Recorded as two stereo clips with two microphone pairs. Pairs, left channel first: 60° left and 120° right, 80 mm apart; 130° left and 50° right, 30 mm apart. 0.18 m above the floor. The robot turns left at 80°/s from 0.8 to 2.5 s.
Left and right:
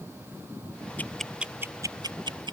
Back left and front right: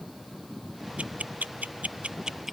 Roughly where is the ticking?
Ahead.